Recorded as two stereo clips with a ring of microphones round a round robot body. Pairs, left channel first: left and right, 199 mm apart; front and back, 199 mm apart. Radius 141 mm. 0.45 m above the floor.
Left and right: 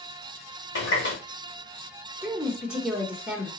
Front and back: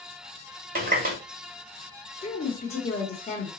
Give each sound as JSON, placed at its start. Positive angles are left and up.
{"t": 0.8, "sound": "a running tap", "azimuth_deg": 135, "distance_m": 1.4}
{"t": 2.2, "sound": "a woman speaking", "azimuth_deg": -10, "distance_m": 0.9}